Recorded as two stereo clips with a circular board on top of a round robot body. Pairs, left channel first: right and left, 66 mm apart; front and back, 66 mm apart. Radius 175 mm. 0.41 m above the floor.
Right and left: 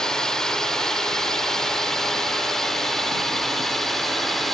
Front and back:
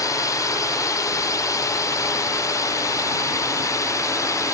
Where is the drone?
10° right; by 4.5 s 5° right.